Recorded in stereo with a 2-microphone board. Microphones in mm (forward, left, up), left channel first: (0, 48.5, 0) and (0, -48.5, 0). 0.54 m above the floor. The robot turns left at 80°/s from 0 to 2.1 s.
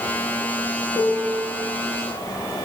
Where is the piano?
85° right, 5 m; by 1.5 s 130° right, 5 m.